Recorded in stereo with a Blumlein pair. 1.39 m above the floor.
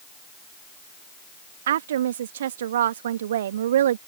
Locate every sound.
1.7 s a woman speaking: 60° right